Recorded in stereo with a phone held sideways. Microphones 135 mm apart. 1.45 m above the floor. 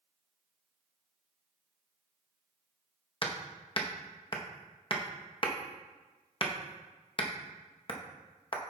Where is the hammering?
40° left (ahead or behind), 0.9 m.